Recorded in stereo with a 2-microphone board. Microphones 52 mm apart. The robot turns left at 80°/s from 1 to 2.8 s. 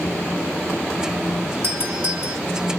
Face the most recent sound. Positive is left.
turn(degrees=160)